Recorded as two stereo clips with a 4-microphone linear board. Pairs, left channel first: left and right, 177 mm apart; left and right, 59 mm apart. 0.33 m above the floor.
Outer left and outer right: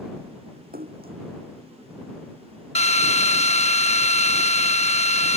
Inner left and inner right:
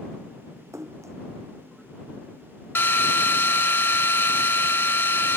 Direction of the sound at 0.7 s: 65° right (ahead or behind).